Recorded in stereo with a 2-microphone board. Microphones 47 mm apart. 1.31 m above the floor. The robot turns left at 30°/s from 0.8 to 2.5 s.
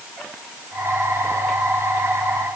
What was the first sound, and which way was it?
Only background noise.